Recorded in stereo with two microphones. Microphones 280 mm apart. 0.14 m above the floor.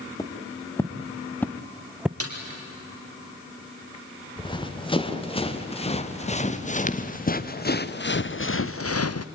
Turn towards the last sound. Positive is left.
turn(degrees=75)  # may be behind; listen again after turning